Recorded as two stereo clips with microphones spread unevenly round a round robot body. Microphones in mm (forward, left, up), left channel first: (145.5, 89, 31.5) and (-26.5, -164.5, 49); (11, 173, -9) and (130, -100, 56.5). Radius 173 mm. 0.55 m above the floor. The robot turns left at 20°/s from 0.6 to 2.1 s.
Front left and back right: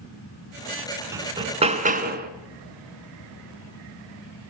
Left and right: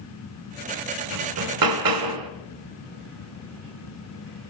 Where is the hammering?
45° right, 2.5 m; by 2.3 s 65° right, 2.5 m.